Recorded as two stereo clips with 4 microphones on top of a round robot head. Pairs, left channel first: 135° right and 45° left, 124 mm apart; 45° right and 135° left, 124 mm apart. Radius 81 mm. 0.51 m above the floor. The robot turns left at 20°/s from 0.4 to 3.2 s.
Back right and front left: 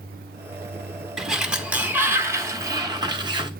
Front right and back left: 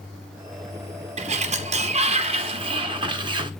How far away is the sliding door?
About 1.3 m.